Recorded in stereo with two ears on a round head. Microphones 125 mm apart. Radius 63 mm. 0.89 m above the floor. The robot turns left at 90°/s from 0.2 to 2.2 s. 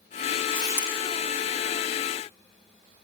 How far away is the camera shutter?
About 10 m.